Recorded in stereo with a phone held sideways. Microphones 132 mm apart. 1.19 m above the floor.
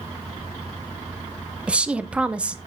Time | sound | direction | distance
1.7 | a woman speaking | 10° right (ahead or behind) | 0.8 m